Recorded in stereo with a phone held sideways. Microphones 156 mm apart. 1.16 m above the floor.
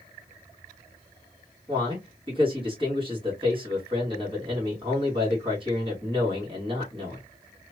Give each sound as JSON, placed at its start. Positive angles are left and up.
{"t": 1.7, "sound": "a man speaking", "side_deg": -35, "distance_m": 2.0}